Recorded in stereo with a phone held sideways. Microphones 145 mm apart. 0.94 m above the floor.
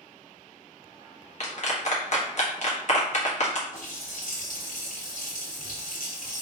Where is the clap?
55° left (ahead or behind), 1.3 m.